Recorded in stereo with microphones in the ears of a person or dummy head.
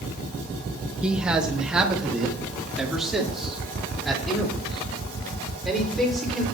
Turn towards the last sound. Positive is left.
turn(degrees=0)  # may be behind; listen again after turning